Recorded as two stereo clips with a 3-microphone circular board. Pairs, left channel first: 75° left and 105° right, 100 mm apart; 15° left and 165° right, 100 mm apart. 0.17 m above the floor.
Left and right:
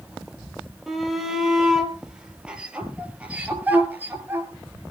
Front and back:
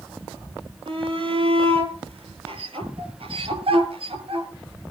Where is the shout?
165° left, 5.5 m; by 4.5 s 170° right, 4 m.